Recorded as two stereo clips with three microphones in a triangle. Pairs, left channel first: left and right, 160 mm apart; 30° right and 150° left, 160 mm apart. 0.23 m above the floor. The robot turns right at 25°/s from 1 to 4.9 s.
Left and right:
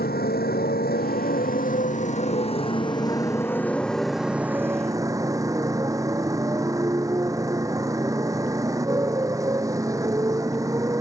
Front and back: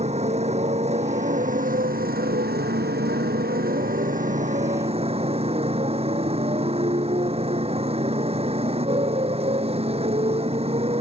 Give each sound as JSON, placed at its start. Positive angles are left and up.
{"t": 0.0, "sound": "a motorcycle", "azimuth_deg": 105}